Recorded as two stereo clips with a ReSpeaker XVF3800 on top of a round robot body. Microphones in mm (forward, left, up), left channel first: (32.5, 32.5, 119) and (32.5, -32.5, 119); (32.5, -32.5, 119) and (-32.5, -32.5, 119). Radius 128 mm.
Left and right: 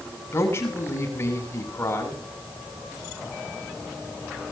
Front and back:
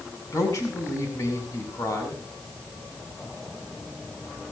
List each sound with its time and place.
0.3 s a man speaking: 40° left, 7.5 m